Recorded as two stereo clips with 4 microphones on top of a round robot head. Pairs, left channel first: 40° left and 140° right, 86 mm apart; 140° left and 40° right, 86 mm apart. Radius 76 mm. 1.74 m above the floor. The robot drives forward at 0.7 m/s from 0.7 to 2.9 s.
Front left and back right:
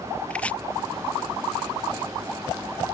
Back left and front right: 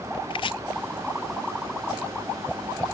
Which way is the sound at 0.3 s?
115° left.